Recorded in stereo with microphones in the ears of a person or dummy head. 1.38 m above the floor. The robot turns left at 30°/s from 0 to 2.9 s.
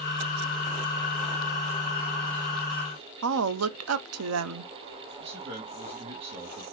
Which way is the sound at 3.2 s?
80° right.